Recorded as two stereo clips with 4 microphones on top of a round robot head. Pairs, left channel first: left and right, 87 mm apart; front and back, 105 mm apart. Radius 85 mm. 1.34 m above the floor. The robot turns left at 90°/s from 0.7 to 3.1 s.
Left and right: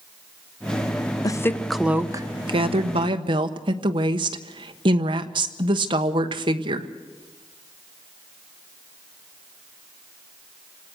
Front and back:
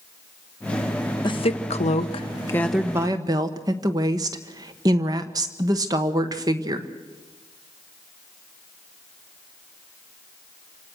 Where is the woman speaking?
45° left, 1.2 m; by 6.9 s 120° right, 1.2 m.